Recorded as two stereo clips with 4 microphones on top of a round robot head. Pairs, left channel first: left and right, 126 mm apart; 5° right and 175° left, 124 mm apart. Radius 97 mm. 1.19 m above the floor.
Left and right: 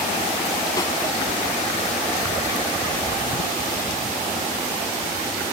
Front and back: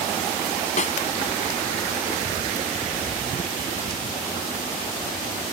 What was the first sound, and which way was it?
A snare drum, 20° left.